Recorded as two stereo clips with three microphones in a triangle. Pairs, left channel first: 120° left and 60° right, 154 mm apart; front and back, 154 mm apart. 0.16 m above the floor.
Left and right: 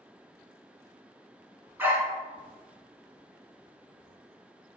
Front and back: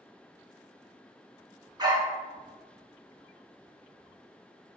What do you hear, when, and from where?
1.8 s a dog barking: 130° right, 0.7 m